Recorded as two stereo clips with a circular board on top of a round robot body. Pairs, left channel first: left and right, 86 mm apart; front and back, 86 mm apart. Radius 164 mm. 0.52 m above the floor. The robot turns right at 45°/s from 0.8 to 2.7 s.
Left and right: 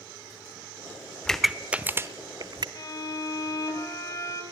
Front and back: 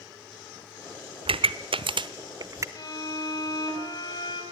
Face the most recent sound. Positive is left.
turn(degrees=40)